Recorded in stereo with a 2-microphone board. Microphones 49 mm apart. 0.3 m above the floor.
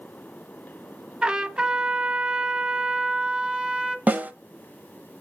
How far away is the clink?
I don't hear a clink.